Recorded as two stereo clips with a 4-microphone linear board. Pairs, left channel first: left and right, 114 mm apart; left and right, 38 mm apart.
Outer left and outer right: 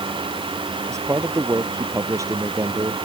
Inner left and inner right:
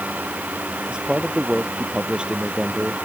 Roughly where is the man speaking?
Right.